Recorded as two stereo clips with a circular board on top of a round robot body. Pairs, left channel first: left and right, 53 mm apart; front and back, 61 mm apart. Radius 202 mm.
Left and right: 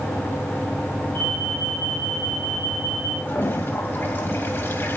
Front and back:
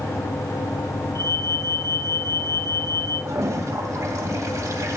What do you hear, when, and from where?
1.1 s an alarm: 40° left, 5.5 m
3.2 s a toilet flushing: 140° left, 2 m